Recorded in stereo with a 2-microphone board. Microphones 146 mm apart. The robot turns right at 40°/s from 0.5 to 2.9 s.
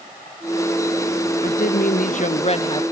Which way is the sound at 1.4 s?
95° left.